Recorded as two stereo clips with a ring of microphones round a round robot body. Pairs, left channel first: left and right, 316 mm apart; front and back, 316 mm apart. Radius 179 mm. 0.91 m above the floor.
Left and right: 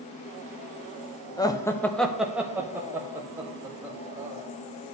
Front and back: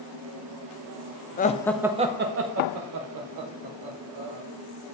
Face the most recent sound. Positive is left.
turn(degrees=-170)